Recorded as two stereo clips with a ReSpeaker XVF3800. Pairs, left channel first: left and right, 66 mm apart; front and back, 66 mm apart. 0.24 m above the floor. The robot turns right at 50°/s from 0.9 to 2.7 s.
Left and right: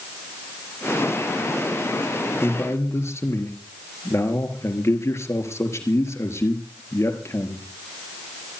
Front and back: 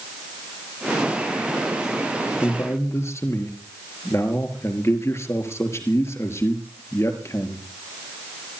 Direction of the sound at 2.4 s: 30° left.